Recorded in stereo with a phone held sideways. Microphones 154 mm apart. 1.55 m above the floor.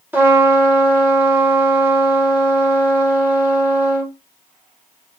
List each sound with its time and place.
0.1 s a trumpet: 10° right (ahead or behind), 1.0 m